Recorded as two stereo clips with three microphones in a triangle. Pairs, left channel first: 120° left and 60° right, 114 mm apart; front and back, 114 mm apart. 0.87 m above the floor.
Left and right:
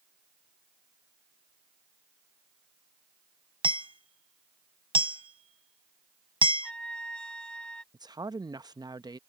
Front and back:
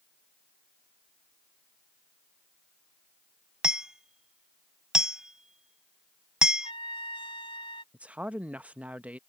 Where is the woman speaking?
105° right.